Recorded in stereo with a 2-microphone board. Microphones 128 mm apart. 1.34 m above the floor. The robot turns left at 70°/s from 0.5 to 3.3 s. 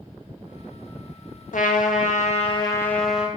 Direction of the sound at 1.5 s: 110° left.